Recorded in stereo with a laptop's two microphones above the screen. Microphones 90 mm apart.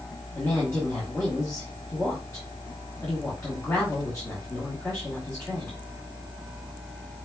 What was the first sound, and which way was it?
A woman speaking, 15° left (ahead or behind).